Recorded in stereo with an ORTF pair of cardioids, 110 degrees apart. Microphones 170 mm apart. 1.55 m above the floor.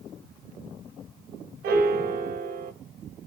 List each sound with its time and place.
1.6 s a piano: 65° right, 1.6 m